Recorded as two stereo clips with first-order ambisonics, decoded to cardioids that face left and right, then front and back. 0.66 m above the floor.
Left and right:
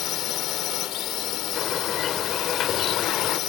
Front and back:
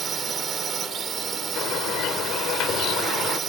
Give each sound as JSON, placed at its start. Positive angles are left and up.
{"t": 0.0, "sound": "a drone", "azimuth_deg": 115}
{"t": 1.6, "sound": "a bird", "azimuth_deg": 40}